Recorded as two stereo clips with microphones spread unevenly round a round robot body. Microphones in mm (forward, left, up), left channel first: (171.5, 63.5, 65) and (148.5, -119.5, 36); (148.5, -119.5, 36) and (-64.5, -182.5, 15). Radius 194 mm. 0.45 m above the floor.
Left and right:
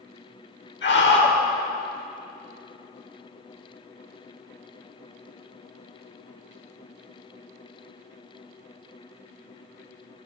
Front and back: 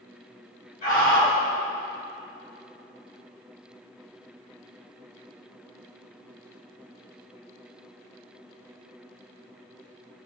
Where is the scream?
80° left, 1.9 m.